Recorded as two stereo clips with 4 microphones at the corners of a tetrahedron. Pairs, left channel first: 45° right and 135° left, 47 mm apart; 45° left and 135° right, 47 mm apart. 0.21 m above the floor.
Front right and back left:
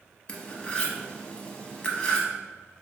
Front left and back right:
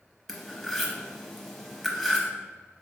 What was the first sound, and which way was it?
Cutlery clinking, 35° right.